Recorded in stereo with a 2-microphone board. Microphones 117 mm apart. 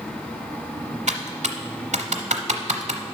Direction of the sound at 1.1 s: 85° right.